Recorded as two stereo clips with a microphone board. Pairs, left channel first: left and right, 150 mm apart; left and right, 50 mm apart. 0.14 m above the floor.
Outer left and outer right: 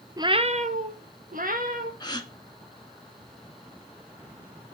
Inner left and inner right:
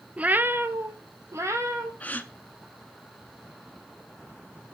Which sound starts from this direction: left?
A gasp, at 2.0 s.